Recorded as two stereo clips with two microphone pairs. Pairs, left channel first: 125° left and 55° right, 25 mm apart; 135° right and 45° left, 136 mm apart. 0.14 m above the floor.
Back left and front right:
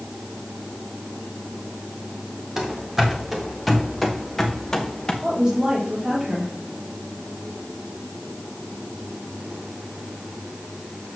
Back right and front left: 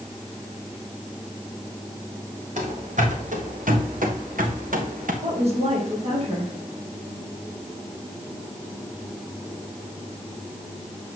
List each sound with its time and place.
2.6 s running footsteps: 20° left, 2.5 m; by 5.1 s 60° left, 1.8 m
5.2 s a woman speaking: 10° left, 3.5 m